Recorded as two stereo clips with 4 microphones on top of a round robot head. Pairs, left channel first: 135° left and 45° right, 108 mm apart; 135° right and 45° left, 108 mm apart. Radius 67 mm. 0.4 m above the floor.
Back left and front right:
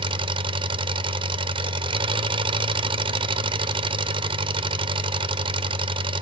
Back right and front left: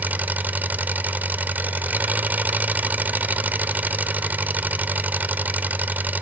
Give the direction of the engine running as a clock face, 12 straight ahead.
1 o'clock.